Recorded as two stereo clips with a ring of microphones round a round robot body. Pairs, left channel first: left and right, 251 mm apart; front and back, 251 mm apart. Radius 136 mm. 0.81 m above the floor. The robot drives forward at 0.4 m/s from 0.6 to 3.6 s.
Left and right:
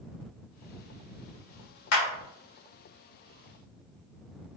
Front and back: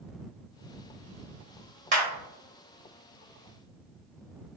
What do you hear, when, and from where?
1.9 s a clap: 120° left, 2.0 m